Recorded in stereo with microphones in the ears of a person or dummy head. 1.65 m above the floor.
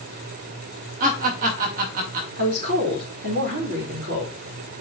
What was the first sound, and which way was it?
Laughter, 55° right (ahead or behind).